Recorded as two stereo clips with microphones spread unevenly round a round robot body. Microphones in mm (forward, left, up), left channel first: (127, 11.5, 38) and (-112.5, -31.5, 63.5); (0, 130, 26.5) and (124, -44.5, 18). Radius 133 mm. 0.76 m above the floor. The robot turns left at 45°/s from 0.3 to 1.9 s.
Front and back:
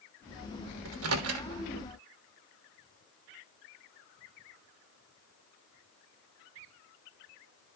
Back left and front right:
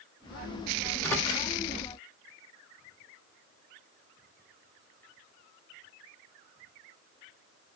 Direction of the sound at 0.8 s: 140° right.